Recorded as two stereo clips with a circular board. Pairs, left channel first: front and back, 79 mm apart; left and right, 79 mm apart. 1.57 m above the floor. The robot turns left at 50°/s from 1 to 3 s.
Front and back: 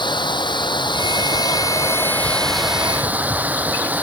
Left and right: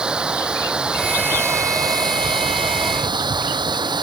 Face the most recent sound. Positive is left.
turn(degrees=-110)